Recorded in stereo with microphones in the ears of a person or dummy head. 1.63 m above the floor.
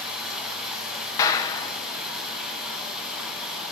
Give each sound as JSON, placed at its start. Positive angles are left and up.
{"t": 0.0, "sound": "running water", "side_deg": 0, "distance_m": 3.5}
{"t": 1.2, "sound": "a clap", "side_deg": 25, "distance_m": 1.0}